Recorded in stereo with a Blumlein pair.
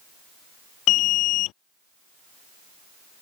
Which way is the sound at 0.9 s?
35° left.